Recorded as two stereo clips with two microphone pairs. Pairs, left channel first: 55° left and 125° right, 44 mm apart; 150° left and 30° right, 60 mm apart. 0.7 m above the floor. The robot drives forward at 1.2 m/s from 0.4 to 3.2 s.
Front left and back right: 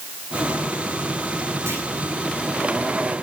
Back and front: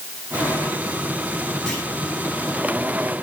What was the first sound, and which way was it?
A clunk, 130° right.